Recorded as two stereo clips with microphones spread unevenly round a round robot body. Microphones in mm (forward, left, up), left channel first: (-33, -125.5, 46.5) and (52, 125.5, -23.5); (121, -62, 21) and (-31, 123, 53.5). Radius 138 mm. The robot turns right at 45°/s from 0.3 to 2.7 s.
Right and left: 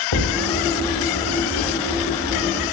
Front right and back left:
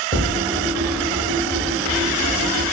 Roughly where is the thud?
Behind right.